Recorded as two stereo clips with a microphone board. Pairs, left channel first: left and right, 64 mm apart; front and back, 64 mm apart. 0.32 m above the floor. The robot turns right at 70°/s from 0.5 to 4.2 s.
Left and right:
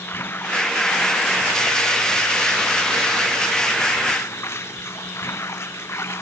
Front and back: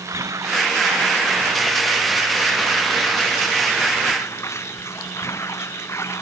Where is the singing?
No singing in this recording.